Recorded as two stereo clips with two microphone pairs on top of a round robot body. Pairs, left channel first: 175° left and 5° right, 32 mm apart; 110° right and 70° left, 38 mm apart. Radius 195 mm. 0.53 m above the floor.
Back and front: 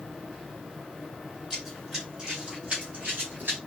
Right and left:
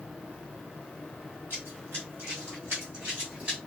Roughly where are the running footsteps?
Left.